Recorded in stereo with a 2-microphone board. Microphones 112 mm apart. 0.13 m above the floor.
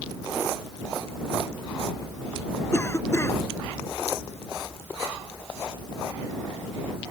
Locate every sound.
2.7 s a cough: 25° left (ahead or behind)